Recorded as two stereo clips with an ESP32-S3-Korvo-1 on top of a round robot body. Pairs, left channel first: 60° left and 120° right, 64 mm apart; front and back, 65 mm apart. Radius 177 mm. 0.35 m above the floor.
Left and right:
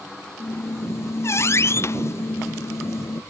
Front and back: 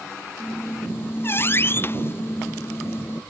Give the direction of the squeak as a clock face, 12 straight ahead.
11 o'clock.